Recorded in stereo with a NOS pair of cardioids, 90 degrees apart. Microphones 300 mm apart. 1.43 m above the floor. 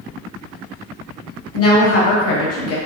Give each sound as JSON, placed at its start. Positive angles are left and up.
{"t": 1.5, "sound": "a woman speaking", "azimuth_deg": 50, "distance_m": 1.3}